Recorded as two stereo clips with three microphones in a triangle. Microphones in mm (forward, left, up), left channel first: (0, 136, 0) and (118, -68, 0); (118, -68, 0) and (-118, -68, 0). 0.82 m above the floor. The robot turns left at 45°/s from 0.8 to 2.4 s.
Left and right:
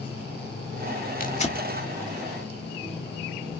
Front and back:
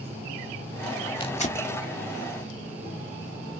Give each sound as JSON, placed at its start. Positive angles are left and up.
{"t": 1.2, "sound": "tearing paper", "azimuth_deg": 70, "distance_m": 1.5}